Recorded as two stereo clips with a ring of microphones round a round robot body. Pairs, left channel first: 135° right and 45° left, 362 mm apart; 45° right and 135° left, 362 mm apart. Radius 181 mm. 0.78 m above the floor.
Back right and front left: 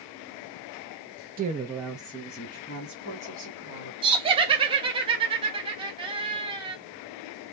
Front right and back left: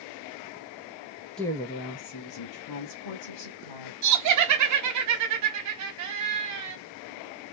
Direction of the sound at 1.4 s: 40° left.